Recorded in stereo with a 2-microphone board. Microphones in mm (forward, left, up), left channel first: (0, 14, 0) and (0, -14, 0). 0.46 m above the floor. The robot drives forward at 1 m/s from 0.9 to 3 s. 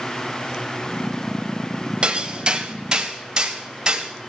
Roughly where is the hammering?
Right.